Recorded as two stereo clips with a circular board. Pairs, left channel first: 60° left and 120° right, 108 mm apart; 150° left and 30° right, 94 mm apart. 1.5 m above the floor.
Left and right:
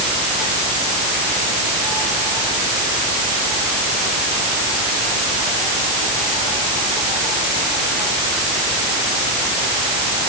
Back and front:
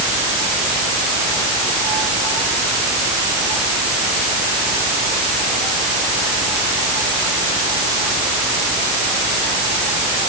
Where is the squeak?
I don't hear a squeak.